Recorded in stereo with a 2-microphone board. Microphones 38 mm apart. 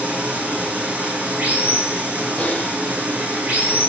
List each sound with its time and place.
0.0 s running water: 50° right (ahead or behind), 3 m
2.4 s typing on a keyboard: 35° left (ahead or behind), 1.4 m